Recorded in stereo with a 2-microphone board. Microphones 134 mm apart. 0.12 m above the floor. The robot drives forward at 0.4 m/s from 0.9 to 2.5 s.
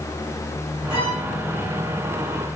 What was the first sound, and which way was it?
A violin, 45° left (ahead or behind).